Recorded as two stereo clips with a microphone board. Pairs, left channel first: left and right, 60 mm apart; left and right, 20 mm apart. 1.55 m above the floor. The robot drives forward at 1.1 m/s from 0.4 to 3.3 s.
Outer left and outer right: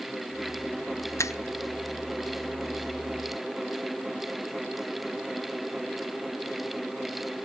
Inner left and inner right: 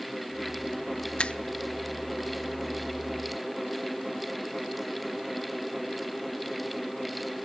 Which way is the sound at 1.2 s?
55° left (ahead or behind).